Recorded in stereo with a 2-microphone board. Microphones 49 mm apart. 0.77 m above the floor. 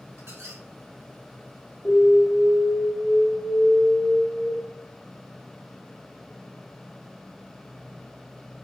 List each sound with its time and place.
0.2 s a squeak: 70° right (ahead or behind), 0.9 m
1.9 s an alarm: 20° left (ahead or behind), 1.4 m